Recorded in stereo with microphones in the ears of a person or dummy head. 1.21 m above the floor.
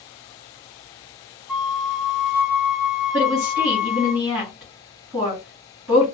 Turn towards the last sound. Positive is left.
turn(degrees=-5)  # may be behind; listen again after turning